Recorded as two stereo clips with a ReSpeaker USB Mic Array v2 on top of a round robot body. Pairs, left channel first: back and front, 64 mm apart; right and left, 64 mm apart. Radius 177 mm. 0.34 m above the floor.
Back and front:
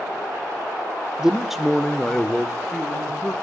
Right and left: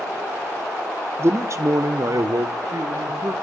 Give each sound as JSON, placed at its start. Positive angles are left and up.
{"t": 1.2, "sound": "a man speaking", "azimuth_deg": 75, "distance_m": 1.0}